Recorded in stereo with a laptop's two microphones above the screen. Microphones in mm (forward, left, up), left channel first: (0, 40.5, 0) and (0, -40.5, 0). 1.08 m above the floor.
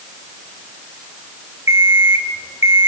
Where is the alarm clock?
35° right (ahead or behind), 2 m.